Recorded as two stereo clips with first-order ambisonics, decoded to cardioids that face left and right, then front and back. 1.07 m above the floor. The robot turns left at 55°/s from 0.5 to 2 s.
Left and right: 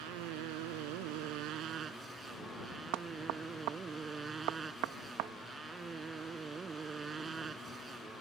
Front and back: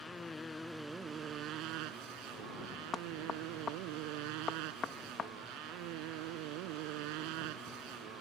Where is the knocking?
70° right.